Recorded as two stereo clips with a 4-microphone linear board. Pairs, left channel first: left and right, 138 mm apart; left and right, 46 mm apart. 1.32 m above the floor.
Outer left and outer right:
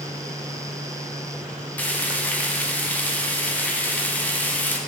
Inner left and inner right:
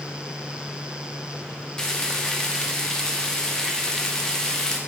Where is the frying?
10° left (ahead or behind), 0.9 m.